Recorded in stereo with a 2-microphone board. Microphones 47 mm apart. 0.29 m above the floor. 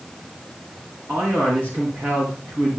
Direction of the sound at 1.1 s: 50° right (ahead or behind).